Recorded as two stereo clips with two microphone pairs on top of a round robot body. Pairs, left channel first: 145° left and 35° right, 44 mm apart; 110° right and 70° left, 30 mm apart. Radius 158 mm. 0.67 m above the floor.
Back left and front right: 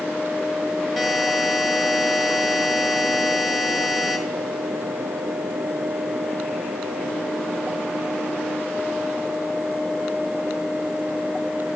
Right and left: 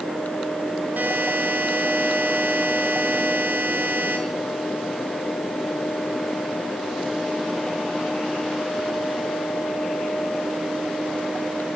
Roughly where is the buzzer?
Ahead left.